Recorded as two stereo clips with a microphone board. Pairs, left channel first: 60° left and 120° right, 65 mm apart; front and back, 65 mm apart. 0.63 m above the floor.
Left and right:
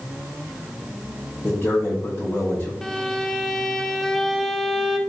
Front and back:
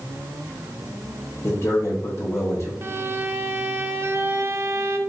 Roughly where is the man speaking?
Ahead.